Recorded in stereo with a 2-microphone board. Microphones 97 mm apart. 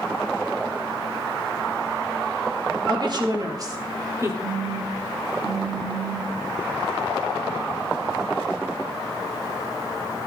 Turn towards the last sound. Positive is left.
turn(degrees=-40)  # may be behind; listen again after turning